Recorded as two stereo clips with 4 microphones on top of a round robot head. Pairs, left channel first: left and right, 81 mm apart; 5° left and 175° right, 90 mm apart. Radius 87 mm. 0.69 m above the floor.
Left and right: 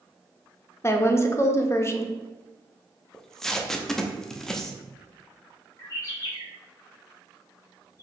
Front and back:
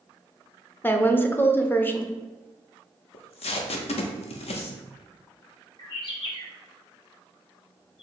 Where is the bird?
40° left, 1.6 m.